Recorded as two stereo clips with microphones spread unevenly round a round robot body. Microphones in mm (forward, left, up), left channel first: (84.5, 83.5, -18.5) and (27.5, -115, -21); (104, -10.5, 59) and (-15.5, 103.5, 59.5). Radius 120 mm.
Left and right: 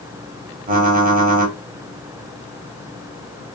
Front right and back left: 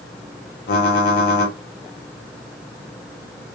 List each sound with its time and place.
0.7 s typing on a keyboard: 60° right, 0.8 m